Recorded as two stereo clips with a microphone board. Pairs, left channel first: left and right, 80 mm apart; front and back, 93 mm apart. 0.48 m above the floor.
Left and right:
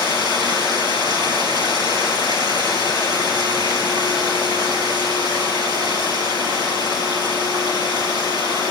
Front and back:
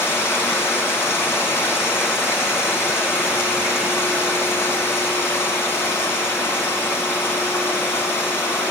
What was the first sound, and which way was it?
Running water, 65° right.